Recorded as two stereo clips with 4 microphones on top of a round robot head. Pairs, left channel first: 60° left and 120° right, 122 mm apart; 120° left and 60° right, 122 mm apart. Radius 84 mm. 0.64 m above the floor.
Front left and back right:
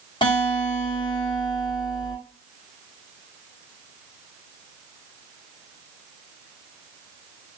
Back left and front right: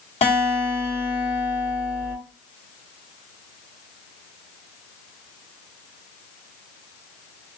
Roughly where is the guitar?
Left.